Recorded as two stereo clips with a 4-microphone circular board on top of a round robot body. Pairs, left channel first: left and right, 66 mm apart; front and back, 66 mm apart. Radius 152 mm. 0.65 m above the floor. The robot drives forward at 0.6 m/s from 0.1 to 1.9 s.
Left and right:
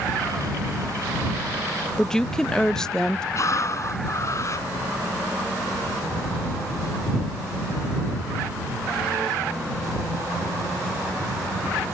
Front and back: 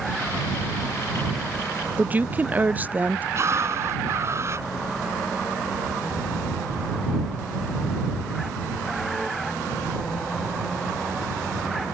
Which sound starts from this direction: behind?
A woman speaking, at 2.0 s.